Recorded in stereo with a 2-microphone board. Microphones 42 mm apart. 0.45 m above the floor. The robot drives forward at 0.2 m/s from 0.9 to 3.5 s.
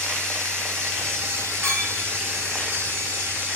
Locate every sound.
0.0 s running water: 80° right, 1.8 m; by 3.6 s 65° right (ahead or behind), 1.9 m
1.6 s a clink: 75° right (ahead or behind), 1.9 m